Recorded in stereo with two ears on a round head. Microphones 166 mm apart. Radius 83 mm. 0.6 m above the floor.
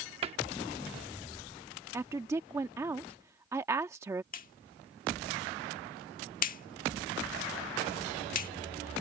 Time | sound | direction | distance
0.2 | a cupboard door | 30° right (ahead or behind) | ?
1.9 | a woman speaking | 15° right (ahead or behind) | ?
4.3 | a clap | 50° left (ahead or behind) | ?